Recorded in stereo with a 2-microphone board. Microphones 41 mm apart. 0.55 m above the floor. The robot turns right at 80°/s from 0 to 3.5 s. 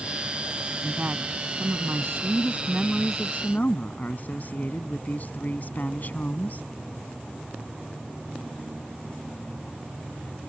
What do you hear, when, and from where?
0.8 s a woman speaking: 170° right; by 6.7 s 45° left